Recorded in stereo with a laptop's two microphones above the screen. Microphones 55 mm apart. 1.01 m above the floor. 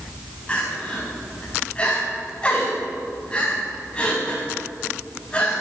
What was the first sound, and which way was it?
Crying, 20° left (ahead or behind).